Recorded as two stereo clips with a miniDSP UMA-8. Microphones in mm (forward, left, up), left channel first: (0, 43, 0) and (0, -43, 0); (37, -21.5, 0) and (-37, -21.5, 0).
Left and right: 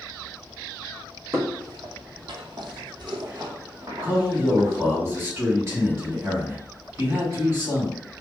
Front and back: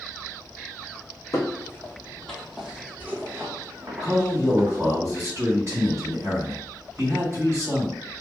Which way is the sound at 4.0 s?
140° right.